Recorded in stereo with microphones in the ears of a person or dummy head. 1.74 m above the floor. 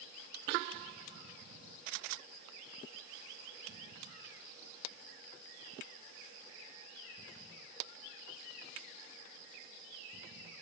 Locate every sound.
Only background noise.